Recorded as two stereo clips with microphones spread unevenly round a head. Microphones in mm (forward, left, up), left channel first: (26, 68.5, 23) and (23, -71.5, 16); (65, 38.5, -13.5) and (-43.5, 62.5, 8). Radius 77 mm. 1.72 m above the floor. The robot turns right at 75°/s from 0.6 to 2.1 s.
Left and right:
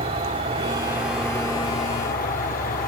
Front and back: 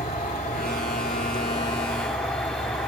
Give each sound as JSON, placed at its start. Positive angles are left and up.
{"t": 0.0, "sound": "an insect", "azimuth_deg": -40, "distance_m": 2.0}